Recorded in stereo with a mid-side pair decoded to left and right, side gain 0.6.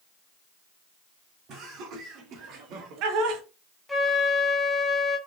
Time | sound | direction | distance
1.5 | laughter | 60° right | 1.8 m
3.9 | a flute | 5° left | 0.9 m